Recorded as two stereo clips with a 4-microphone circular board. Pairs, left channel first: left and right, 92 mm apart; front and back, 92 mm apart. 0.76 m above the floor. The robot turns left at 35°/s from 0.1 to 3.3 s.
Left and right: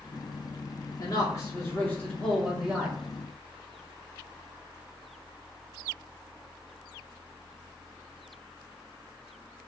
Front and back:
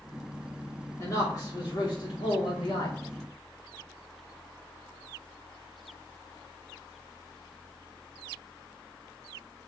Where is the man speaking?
55° left, 2 m; by 3.0 s 15° right, 2 m.